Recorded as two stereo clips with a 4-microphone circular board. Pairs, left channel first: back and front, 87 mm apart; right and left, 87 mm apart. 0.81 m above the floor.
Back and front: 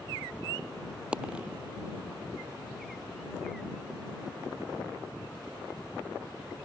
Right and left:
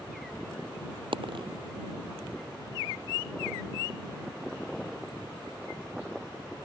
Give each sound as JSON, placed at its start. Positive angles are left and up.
{"t": 1.1, "sound": "a dropped coin", "azimuth_deg": 80}